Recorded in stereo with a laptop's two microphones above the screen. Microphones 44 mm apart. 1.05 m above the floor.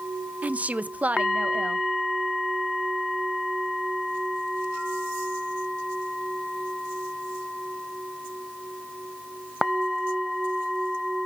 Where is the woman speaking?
35° right (ahead or behind), 0.7 m.